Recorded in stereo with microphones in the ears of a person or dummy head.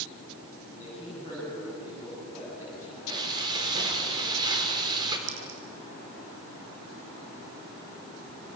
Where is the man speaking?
15° right (ahead or behind), 8.5 m.